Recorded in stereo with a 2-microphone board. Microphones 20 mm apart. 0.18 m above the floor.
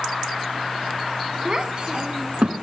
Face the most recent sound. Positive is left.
turn(degrees=-50)  # may be behind; listen again after turning